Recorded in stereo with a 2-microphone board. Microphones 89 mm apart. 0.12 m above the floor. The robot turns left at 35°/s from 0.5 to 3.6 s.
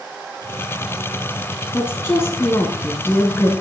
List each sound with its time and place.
1.7 s a woman speaking: 25° left (ahead or behind), 1.1 m